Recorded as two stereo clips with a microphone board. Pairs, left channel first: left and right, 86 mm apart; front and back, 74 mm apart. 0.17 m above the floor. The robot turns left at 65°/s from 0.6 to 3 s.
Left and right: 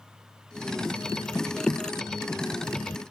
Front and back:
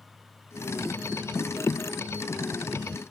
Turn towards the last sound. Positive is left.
No sound to turn to.